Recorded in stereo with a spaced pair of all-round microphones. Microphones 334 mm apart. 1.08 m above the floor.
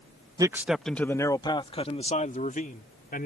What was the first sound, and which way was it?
A man speaking, 10° right (ahead or behind).